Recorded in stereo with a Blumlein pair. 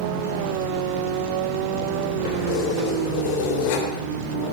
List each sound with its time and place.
2.2 s keys jangling: 45° left, 3 m